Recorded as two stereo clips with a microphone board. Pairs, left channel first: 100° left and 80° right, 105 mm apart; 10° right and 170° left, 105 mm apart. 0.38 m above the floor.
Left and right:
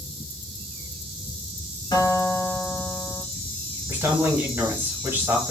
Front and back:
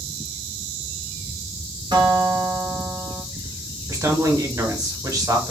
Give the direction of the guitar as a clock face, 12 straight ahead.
8 o'clock.